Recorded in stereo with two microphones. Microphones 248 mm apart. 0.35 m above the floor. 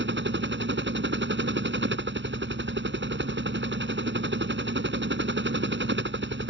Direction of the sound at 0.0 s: 50° right (ahead or behind).